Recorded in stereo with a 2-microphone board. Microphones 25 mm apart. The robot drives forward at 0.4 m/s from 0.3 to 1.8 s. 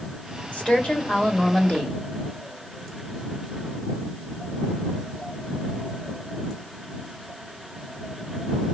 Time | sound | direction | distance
0.5 | a woman speaking | 60° left (ahead or behind) | 1.5 m